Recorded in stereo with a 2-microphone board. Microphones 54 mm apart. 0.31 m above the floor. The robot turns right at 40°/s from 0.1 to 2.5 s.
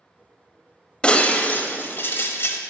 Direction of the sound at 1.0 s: 30° left.